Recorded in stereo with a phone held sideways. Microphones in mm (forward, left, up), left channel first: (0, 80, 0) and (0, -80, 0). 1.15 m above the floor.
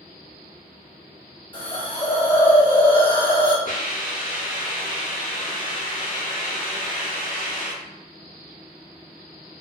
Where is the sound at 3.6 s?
55° left (ahead or behind), 1.2 m.